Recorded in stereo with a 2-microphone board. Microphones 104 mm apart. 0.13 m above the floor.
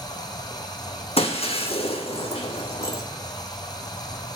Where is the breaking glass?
75° left (ahead or behind), 0.9 m.